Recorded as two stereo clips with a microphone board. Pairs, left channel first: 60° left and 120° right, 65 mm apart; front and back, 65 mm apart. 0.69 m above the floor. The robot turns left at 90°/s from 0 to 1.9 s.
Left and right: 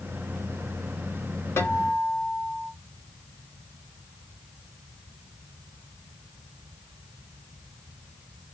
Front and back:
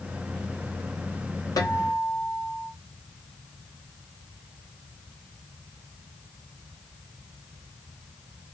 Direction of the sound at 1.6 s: 10° left.